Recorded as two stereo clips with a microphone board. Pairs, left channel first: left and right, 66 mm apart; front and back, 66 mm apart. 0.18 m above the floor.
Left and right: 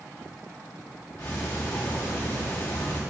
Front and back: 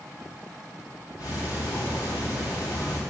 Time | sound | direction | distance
1.2 | ticking | 20° left | 3 m